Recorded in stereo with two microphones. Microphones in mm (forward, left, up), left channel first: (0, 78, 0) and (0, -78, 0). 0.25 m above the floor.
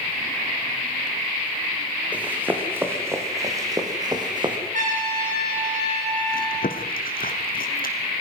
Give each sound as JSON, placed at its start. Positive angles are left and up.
{"t": 2.1, "sound": "running footsteps", "side_deg": -10, "distance_m": 3.5}
{"t": 4.7, "sound": "a trumpet", "side_deg": -55, "distance_m": 7.0}
{"t": 6.3, "sound": "chewing", "side_deg": 70, "distance_m": 2.0}